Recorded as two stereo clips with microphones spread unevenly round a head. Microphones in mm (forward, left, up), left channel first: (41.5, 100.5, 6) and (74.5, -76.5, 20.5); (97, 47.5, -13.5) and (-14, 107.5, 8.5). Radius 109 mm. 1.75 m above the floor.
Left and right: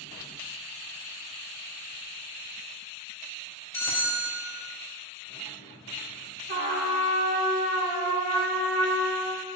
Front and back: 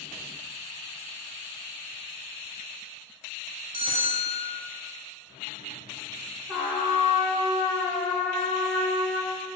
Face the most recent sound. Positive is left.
turn(degrees=-120)